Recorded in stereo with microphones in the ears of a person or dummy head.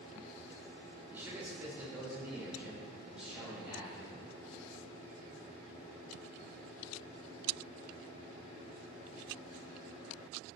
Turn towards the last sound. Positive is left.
turn(degrees=-10)  # may be behind; listen again after turning